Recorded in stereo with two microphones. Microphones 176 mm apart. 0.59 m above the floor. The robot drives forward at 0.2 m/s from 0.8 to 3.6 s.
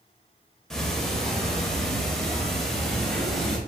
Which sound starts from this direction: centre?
Ticking, at 0.7 s.